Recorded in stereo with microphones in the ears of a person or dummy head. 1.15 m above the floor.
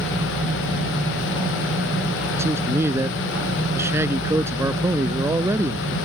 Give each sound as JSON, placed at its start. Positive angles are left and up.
{"t": 2.4, "sound": "a man speaking", "side_deg": -15}